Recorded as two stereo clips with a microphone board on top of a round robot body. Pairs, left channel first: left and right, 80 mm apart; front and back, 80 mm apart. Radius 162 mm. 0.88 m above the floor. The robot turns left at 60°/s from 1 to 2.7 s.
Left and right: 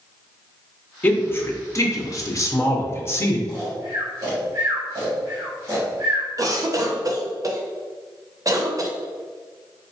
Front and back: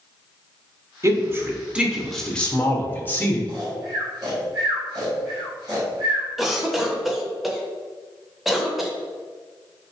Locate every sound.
1.0 s a man speaking: 155° left, 0.8 m; by 3.4 s 55° left, 0.8 m
3.5 s snoring: 140° right, 1.6 m
6.4 s a cough: 95° right, 0.8 m